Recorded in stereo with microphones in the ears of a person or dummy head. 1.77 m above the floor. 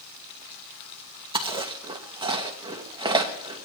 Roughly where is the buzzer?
No buzzer in this recording.